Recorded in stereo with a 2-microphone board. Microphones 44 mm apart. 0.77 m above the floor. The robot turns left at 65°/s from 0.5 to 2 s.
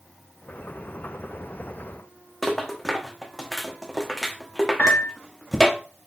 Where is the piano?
30° left (ahead or behind), 0.9 m.